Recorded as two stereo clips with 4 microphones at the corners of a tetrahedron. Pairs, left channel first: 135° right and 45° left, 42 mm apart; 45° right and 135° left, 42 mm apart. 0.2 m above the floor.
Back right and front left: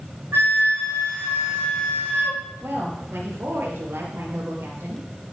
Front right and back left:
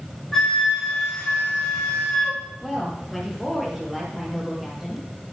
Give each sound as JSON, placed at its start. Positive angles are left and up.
{"t": 0.3, "sound": "a flute", "azimuth_deg": 40, "distance_m": 5.5}
{"t": 2.6, "sound": "a woman speaking", "azimuth_deg": 50, "distance_m": 5.5}